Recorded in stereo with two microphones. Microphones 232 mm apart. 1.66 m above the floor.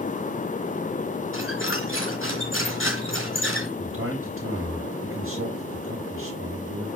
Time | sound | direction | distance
1.3 | a squeak | 60° left (ahead or behind) | 3.5 m
3.8 | a man speaking | 65° right (ahead or behind) | 5 m